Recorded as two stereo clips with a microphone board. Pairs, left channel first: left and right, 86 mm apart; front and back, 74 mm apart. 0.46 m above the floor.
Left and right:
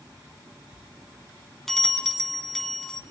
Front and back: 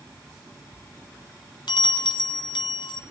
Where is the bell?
5° left, 1.4 m.